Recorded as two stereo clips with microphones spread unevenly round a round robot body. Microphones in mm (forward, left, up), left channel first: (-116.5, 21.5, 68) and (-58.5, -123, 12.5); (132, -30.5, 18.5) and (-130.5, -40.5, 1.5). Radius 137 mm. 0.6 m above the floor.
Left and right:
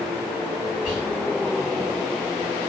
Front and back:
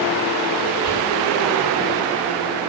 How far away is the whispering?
About 1.2 m.